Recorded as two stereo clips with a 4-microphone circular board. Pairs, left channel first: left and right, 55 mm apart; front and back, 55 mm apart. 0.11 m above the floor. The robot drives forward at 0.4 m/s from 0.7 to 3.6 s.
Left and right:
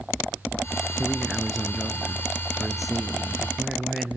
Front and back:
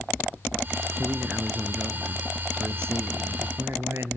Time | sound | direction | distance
1.0 | a man speaking | 170° right | 1.7 m